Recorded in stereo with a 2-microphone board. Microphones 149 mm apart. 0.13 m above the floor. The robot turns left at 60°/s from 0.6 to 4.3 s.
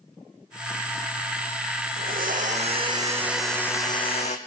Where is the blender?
90° right, 1.6 m; by 4.4 s 130° left, 1.6 m.